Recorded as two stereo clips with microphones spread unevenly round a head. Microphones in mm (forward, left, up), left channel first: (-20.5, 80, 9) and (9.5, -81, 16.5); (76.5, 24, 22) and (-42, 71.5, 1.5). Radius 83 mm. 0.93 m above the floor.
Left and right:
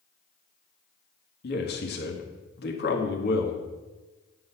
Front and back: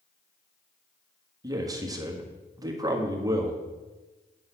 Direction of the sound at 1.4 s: 105° left.